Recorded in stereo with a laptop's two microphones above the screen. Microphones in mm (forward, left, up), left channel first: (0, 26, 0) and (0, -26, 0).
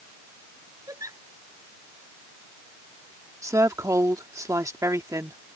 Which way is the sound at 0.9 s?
80° right.